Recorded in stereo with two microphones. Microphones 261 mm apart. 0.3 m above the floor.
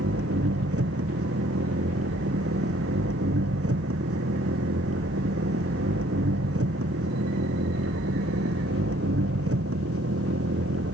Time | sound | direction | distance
0.0 | an engine running | 60° right (ahead or behind) | ?